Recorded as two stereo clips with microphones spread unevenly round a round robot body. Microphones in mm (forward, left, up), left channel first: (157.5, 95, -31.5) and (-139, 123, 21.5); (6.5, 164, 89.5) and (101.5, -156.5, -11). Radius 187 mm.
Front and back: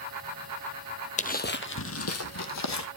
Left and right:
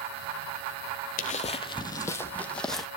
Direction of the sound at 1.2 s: 65° left.